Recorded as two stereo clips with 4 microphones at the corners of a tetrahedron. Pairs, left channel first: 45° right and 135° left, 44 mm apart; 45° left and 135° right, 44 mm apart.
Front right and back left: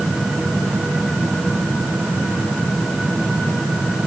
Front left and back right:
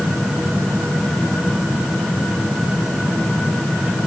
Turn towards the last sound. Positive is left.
No sound to turn to.